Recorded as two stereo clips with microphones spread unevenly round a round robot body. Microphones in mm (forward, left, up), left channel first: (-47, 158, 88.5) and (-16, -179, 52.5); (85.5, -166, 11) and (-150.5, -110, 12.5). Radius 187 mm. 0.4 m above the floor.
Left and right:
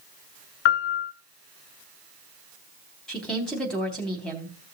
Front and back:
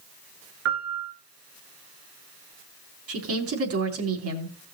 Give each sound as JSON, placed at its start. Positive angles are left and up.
{"t": 0.7, "sound": "a piano", "azimuth_deg": 105, "distance_m": 1.6}
{"t": 3.1, "sound": "a woman speaking", "azimuth_deg": -175, "distance_m": 3.5}